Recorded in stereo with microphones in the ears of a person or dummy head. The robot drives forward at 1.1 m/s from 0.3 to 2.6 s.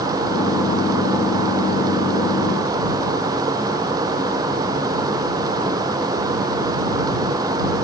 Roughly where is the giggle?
I don't hear a giggle.